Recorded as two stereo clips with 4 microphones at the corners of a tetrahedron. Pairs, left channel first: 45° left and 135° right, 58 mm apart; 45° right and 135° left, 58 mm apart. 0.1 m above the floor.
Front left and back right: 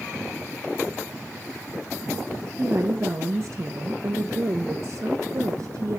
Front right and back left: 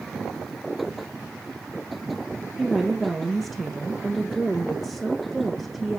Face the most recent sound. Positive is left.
turn(degrees=-140)